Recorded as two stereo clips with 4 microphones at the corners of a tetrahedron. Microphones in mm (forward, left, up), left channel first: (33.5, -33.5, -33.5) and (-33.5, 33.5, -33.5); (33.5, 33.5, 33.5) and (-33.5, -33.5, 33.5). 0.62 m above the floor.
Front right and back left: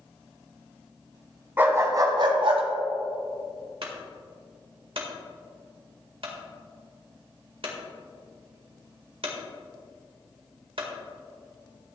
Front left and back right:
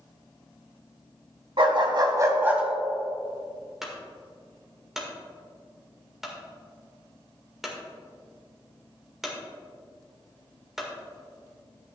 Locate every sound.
1.6 s a dog barking: 155° right, 1.5 m; by 2.6 s 150° left, 1.3 m
3.8 s a clunk: 140° left, 1.8 m